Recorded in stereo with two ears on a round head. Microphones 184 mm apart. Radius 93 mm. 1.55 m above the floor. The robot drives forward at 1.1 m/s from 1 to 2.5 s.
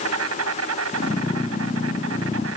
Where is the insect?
85° right; by 2.6 s 80° right.